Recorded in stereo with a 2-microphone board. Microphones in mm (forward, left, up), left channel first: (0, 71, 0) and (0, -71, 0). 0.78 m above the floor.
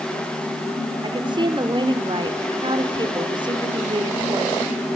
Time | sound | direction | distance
1.0 | a woman speaking | 35° right (ahead or behind) | 2.5 m